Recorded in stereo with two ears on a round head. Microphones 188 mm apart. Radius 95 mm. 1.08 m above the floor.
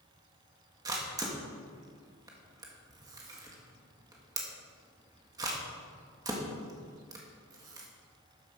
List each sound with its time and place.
0.8 s a camera shutter: 20° right (ahead or behind), 1.6 m